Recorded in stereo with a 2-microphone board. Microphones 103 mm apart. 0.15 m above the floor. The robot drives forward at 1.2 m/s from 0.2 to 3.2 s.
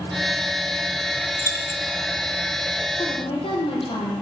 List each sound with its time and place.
1.4 s keys jangling: 25° left (ahead or behind), 1.2 m
3.0 s a woman speaking: 55° left (ahead or behind), 5 m; by 4.2 s 60° left (ahead or behind), 5 m